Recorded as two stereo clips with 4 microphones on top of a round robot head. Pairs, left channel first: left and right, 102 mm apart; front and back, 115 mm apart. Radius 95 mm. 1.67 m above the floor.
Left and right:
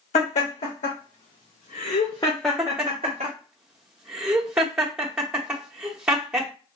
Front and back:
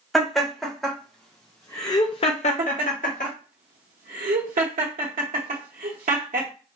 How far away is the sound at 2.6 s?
About 0.8 m.